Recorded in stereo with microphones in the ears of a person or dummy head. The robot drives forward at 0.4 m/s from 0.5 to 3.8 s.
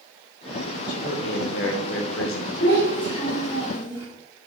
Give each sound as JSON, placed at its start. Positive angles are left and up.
{"t": 0.9, "sound": "a man speaking", "side_deg": 50, "distance_m": 0.9}
{"t": 2.6, "sound": "a child speaking", "side_deg": 25, "distance_m": 1.7}